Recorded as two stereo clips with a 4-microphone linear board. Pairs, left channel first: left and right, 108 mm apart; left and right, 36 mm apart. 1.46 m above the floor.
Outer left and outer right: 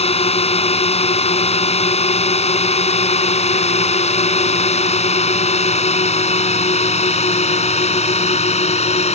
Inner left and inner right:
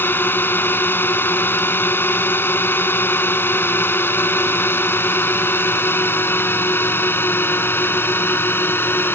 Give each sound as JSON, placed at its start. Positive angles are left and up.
{"t": 0.0, "sound": "a drone", "side_deg": 70}